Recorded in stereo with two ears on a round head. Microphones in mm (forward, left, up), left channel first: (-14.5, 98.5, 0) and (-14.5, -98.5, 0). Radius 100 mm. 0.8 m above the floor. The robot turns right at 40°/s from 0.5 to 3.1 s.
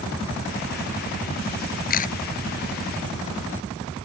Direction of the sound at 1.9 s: 45° left (ahead or behind).